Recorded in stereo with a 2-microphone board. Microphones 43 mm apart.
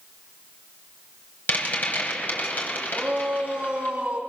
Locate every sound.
1.5 s a rattle: 45° left (ahead or behind), 4.5 m
2.9 s a shout: 25° right (ahead or behind), 3.5 m